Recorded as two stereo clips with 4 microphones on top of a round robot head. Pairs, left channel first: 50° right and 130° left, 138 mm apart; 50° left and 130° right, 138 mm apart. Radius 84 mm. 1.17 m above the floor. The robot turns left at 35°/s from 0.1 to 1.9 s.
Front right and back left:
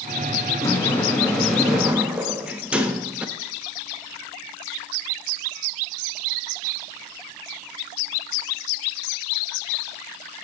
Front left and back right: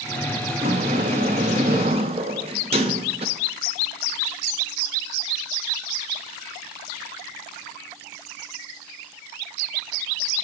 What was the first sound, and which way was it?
A sliding door, 105° right.